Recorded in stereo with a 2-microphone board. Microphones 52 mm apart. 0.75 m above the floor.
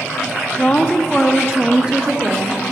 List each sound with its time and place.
0.6 s a woman speaking: 30° left (ahead or behind), 0.9 m; by 2.6 s 30° right (ahead or behind), 1.4 m